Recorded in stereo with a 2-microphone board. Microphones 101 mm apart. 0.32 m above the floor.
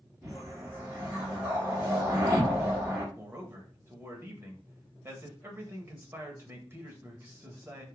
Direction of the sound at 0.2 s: 20° right (ahead or behind).